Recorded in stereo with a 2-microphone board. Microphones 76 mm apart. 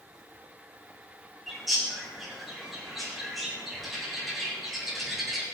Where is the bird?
Centre (ahead or behind), 5 m.